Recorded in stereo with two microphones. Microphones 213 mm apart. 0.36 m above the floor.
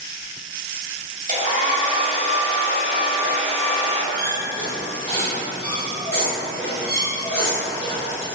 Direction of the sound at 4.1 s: 5° left (ahead or behind).